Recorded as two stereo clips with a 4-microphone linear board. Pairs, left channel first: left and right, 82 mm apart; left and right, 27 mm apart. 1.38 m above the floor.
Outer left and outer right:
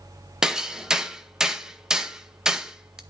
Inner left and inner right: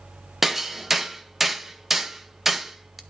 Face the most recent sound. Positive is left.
turn(degrees=-5)  # may be behind; listen again after turning